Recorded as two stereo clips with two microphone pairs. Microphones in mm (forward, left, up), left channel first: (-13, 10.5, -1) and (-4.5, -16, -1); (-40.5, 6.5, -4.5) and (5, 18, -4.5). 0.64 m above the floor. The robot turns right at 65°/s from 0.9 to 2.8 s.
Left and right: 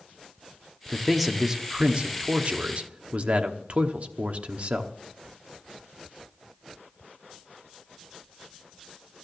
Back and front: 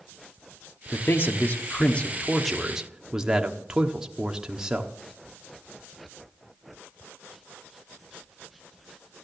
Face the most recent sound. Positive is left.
turn(degrees=-60)